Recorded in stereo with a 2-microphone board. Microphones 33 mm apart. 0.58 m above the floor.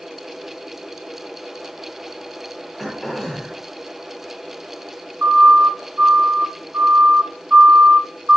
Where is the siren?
55° right (ahead or behind), 3.5 m; by 8.4 s 40° right (ahead or behind), 2 m.